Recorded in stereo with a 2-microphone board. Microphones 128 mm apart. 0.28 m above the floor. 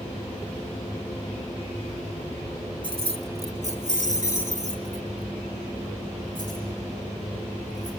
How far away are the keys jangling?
About 1.5 m.